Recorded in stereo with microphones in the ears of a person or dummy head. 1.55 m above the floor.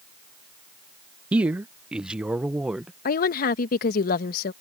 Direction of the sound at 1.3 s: 10° right (ahead or behind).